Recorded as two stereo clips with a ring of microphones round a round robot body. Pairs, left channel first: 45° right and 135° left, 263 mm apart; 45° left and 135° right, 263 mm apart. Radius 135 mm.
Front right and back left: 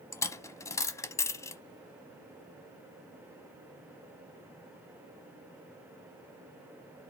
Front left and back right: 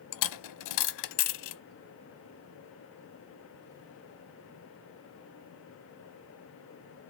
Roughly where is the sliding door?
I don't hear a sliding door.